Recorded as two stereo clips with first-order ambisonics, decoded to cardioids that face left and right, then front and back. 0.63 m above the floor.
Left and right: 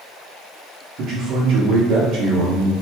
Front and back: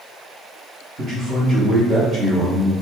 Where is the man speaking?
120° right, 1.0 m.